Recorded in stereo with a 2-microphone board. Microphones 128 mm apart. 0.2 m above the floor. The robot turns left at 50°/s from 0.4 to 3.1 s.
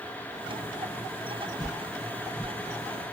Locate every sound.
1.6 s a whoosh: 30° left (ahead or behind), 1.2 m; by 3.1 s 5° right (ahead or behind), 1.2 m